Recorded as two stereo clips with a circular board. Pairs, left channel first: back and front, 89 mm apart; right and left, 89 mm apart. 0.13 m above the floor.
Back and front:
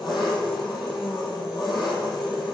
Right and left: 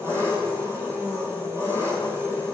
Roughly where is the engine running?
Behind left.